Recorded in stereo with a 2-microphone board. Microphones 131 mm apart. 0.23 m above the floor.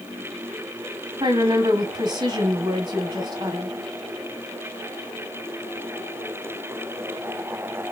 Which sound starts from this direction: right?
A woman speaking, at 1.2 s.